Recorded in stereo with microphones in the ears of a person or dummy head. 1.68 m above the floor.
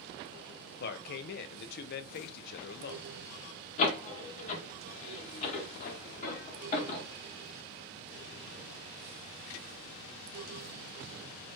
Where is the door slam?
45° left (ahead or behind), 1.6 m.